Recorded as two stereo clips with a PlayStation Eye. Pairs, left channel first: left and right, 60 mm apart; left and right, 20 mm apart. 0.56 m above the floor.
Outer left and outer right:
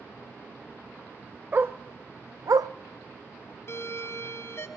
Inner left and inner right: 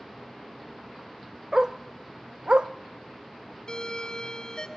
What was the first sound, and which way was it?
A dog barking, 35° right (ahead or behind).